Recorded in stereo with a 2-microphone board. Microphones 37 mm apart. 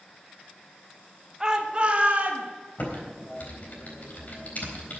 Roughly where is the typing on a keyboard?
Left.